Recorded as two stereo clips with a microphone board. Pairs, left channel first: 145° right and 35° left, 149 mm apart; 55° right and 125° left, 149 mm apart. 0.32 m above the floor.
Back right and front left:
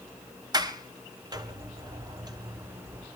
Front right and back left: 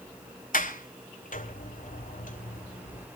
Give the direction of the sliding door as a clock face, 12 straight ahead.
1 o'clock.